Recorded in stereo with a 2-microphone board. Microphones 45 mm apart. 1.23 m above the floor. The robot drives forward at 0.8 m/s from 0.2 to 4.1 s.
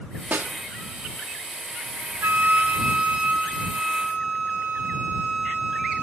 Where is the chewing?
I don't hear chewing.